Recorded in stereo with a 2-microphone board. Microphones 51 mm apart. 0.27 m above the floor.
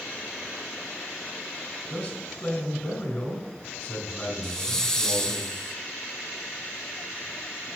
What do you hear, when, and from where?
1.9 s a man speaking: 30° left (ahead or behind), 2 m
4.4 s a hiss: 15° left (ahead or behind), 0.6 m